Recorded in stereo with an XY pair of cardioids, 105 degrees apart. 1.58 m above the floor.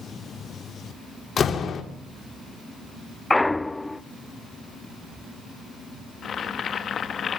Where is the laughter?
No laughter in this recording.